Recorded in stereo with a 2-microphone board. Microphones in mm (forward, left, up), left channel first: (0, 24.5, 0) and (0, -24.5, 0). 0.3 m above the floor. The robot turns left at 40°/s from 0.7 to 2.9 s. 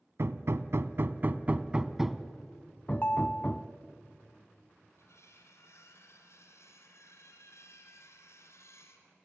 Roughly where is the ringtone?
Left.